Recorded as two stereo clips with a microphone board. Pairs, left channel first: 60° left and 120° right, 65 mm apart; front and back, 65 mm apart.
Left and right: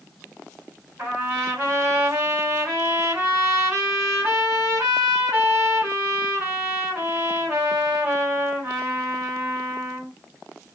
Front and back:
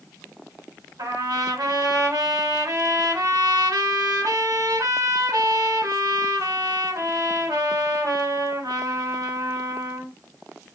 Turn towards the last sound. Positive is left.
turn(degrees=-170)